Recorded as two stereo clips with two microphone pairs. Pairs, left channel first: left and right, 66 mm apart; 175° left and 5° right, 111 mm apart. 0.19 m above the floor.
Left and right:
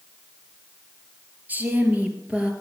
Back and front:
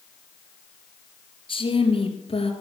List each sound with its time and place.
1.5 s a woman speaking: 150° right, 3.5 m; by 2.5 s 165° right, 3 m